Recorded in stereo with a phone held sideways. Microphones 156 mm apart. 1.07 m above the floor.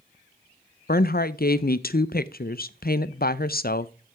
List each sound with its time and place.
0.9 s a woman speaking: 75° left (ahead or behind), 0.5 m